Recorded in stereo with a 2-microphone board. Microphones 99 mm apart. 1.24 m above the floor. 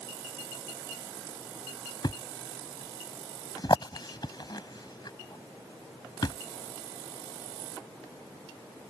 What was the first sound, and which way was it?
A thud, 45° left (ahead or behind).